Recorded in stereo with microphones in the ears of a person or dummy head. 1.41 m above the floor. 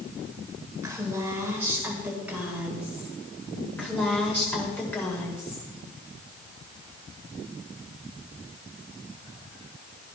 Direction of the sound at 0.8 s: 15° right (ahead or behind).